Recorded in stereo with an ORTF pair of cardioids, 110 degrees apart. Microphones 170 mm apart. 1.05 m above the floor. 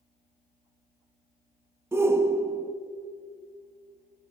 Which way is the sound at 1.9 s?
15° right.